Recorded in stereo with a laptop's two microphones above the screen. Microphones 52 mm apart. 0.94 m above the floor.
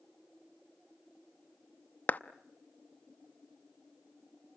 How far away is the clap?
About 0.7 m.